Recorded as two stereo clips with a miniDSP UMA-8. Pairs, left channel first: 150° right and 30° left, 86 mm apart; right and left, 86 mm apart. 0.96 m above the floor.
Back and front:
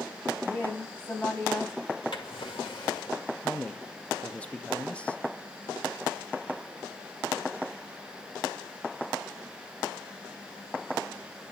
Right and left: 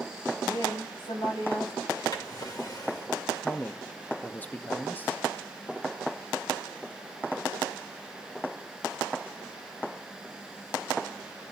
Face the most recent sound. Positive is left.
turn(degrees=-100)